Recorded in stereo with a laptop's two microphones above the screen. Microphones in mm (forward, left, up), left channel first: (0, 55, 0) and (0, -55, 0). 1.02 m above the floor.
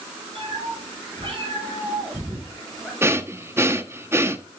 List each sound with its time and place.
0.3 s a cat meowing: 60° right (ahead or behind), 4.5 m; by 2.9 s 5° right (ahead or behind), 2.5 m
3.0 s breathing: 25° right (ahead or behind), 0.9 m